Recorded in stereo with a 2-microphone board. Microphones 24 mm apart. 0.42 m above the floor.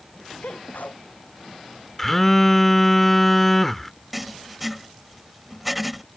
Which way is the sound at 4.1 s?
5° right (ahead or behind).